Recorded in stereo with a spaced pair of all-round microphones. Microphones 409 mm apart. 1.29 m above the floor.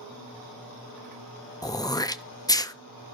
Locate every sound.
1.6 s throat clearing: 10° left (ahead or behind), 0.6 m